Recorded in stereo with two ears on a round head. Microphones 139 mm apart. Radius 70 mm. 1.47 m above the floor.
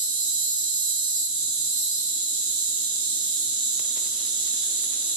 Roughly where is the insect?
Right.